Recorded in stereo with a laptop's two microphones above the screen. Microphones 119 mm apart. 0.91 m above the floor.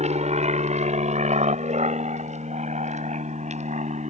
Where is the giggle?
I don't hear a giggle.